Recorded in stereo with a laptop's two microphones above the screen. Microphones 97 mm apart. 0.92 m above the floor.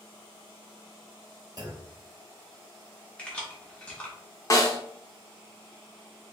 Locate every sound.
1.6 s a clunk: 40° right (ahead or behind), 1.4 m
3.2 s keys jangling: 10° left (ahead or behind), 0.8 m
4.5 s a snare drum: 35° left (ahead or behind), 0.6 m